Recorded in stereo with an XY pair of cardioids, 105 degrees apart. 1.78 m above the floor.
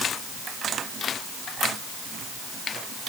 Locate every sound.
Only background noise.